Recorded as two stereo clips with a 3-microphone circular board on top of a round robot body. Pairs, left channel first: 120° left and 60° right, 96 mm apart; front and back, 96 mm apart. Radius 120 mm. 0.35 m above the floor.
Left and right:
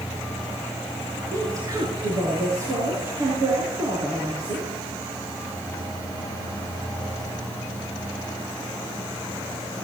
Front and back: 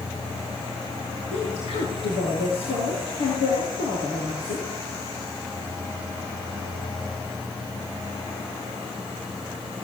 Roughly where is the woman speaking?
Ahead.